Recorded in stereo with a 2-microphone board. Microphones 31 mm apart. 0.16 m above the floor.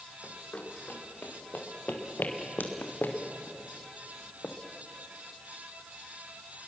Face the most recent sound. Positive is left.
turn(degrees=60)  # may be behind; listen again after turning